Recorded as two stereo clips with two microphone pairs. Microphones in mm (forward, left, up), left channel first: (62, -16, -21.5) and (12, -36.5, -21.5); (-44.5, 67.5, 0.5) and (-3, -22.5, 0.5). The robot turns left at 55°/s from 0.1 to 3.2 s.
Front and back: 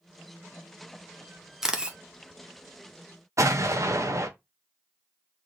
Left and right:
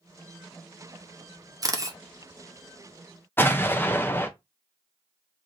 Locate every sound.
1.6 s a camera shutter: 80° right, 0.7 m; by 2.0 s 100° right, 0.7 m
3.4 s an explosion: straight behind, 0.6 m